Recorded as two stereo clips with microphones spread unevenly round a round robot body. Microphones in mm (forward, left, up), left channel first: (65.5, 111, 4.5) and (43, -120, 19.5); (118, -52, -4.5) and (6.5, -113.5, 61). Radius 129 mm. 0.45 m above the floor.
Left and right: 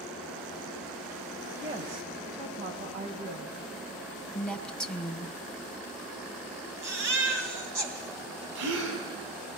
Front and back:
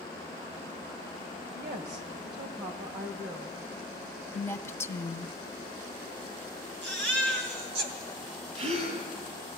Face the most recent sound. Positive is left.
turn(degrees=-125)